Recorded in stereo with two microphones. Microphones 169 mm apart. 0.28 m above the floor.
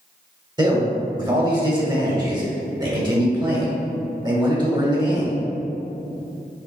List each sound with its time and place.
0.6 s a man speaking: 25° right (ahead or behind), 1.3 m